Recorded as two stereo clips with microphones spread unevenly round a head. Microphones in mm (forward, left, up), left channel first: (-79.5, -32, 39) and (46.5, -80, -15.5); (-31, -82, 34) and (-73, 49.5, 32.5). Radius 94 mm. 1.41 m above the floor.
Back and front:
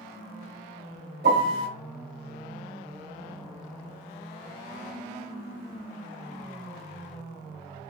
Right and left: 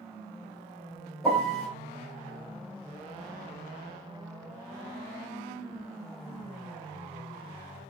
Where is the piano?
15° left, 2.5 m.